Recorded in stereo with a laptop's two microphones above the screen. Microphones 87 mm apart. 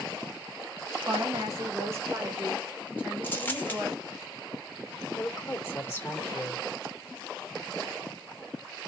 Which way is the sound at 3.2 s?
20° left (ahead or behind).